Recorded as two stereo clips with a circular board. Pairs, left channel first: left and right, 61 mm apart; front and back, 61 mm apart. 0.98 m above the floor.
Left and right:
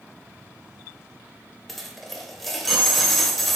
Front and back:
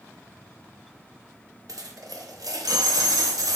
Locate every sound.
1.7 s a dropped coin: 175° left, 0.8 m